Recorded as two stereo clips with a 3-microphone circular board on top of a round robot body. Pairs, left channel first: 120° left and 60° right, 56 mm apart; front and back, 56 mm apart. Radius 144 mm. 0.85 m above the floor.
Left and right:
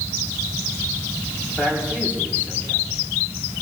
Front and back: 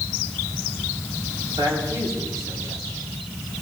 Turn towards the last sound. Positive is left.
turn(degrees=-175)